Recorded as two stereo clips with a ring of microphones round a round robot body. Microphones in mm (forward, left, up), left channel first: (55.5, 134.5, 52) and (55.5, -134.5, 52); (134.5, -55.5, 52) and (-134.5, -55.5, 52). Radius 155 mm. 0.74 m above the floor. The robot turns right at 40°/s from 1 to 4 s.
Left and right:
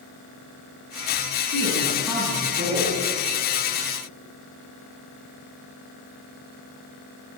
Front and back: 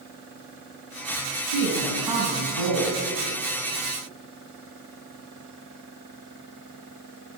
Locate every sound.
1.5 s a woman speaking: 155° left, 7 m; by 3.0 s 145° right, 7 m